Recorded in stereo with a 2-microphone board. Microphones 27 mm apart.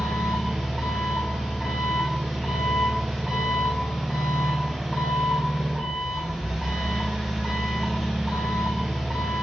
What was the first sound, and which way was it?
An engine running, centre (ahead or behind).